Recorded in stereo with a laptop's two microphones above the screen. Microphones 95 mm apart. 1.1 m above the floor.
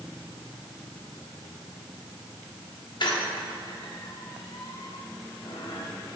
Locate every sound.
3.0 s a squeak: 55° left (ahead or behind), 1.1 m